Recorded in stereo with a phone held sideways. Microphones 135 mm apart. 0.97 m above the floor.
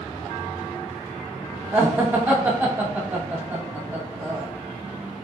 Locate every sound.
1.7 s laughter: 15° right (ahead or behind), 0.9 m